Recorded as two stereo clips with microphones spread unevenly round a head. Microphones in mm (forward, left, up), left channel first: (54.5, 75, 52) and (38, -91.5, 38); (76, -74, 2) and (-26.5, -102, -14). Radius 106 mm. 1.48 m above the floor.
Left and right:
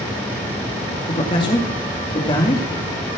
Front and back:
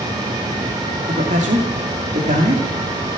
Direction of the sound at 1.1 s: 150° left.